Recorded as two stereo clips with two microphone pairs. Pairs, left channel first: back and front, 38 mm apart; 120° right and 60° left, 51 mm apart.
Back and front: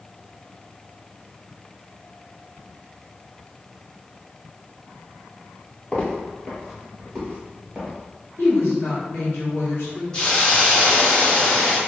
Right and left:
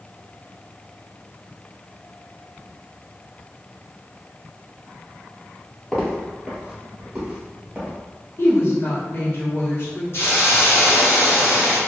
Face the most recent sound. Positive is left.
turn(degrees=-125)